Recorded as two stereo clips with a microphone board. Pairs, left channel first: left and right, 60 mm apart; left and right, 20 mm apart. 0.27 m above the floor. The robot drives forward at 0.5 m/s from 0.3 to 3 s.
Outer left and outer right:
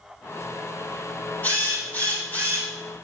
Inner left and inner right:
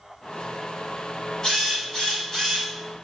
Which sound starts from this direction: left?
A drill, at 1.4 s.